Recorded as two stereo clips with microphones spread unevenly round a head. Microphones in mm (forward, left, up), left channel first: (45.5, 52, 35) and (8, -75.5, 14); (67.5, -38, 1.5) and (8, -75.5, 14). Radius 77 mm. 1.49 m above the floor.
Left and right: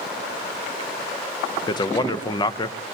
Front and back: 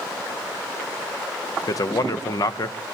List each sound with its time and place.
1.7 s a man speaking: 15° left, 0.6 m